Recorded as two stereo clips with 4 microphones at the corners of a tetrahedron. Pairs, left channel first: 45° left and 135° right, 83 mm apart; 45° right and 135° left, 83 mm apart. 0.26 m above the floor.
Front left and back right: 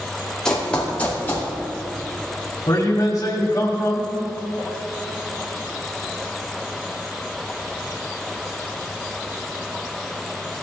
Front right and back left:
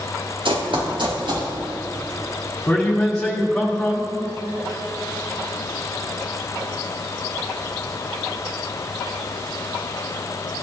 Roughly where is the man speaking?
Ahead left.